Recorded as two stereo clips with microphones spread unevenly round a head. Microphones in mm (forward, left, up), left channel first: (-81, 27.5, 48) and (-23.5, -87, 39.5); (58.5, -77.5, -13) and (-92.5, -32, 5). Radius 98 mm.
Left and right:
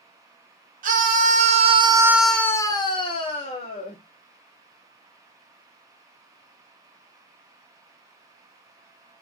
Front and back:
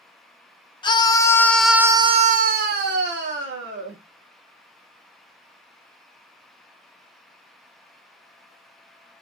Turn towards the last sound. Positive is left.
turn(degrees=150)